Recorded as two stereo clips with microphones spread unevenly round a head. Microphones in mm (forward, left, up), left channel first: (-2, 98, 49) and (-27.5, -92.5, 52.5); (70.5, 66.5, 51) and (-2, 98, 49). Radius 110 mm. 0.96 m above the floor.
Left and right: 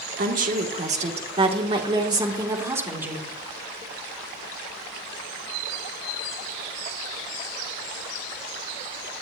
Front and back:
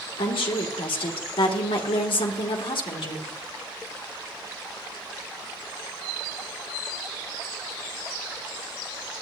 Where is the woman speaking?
50° right, 2.5 m; by 3.3 s 15° right, 3 m.